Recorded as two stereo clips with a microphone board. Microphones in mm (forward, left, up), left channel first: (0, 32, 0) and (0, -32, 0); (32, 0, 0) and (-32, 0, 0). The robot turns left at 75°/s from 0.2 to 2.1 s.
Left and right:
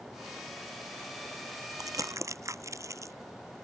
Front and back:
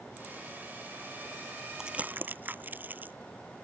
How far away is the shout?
No shout in this recording.